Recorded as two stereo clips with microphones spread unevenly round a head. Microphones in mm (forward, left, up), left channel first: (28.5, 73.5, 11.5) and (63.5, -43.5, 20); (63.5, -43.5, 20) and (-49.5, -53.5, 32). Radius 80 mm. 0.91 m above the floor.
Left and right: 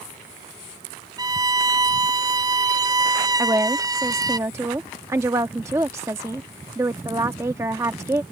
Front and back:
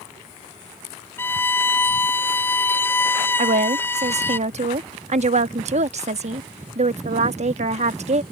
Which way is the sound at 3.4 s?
150° right.